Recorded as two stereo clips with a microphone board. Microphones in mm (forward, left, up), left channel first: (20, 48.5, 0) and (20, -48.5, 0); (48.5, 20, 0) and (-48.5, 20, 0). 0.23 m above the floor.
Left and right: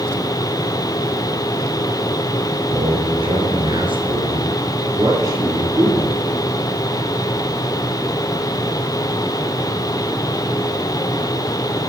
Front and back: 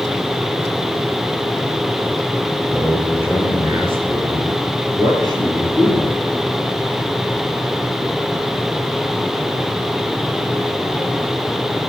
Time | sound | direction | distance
2.7 | a man speaking | 100° right | 4.5 m